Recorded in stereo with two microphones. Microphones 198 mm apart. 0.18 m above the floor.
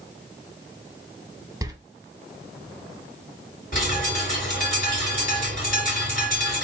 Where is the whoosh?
I don't hear a whoosh.